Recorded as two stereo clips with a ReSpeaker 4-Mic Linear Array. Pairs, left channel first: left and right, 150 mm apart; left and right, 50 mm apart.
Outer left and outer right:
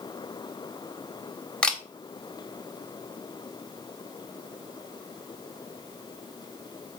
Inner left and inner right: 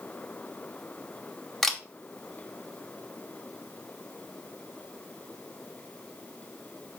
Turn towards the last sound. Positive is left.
turn(degrees=5)  # may be behind; listen again after turning